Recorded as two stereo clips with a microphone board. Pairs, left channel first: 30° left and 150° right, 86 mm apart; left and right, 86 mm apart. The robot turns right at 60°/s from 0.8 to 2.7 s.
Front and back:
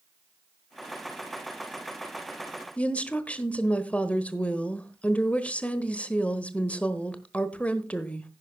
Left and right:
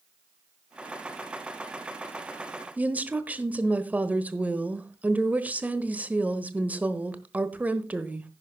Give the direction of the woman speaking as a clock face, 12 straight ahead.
1 o'clock.